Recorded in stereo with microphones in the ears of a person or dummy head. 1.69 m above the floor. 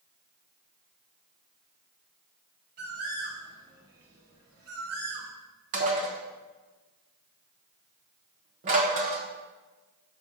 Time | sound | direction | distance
2.8 | a bird | 45° right (ahead or behind) | 1.3 m
5.7 | dishes clattering | 40° right (ahead or behind) | 1.1 m